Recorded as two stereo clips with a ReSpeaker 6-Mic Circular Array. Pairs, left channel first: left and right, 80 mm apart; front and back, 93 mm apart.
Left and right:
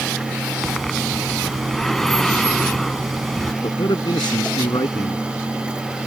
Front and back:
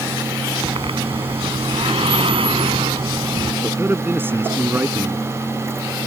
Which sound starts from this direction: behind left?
A man speaking, at 3.6 s.